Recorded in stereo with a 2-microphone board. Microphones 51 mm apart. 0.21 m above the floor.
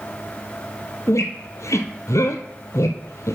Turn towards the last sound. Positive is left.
turn(degrees=75)  # may be behind; listen again after turning